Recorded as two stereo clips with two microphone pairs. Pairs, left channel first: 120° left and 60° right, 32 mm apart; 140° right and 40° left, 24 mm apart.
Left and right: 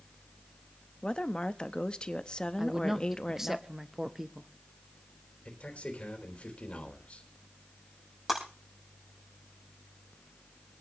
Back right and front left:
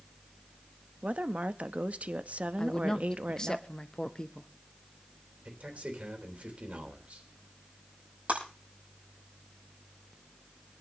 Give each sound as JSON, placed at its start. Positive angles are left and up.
{"t": 1.0, "sound": "a woman speaking", "azimuth_deg": 60, "distance_m": 0.8}
{"t": 2.6, "sound": "a woman speaking", "azimuth_deg": -120, "distance_m": 0.7}
{"t": 5.5, "sound": "a man speaking", "azimuth_deg": 70, "distance_m": 3.5}
{"t": 8.3, "sound": "breaking glass", "azimuth_deg": 20, "distance_m": 7.0}